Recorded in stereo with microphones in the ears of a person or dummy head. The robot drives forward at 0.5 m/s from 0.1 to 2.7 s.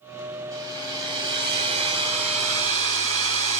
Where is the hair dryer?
20° right (ahead or behind), 2 m; by 3.6 s 40° right (ahead or behind), 1.2 m.